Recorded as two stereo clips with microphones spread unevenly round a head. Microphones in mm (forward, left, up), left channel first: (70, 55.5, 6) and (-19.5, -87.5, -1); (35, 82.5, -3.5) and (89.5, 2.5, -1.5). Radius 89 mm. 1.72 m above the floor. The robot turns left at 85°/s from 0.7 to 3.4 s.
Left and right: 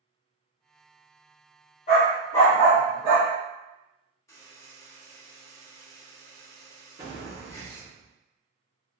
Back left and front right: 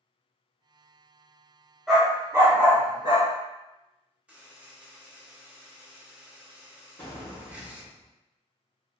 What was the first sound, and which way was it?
A dog barking, 35° left.